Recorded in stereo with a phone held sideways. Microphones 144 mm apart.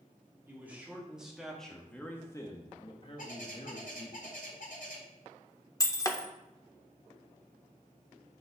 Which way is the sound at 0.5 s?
15° right (ahead or behind).